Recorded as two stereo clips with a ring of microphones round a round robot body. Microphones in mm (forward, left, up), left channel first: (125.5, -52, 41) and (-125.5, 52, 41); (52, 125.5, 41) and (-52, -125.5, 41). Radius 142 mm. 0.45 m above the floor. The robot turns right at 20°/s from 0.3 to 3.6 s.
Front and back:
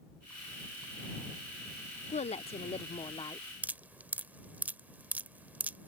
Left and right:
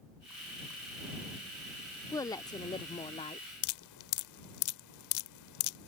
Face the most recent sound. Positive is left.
turn(degrees=75)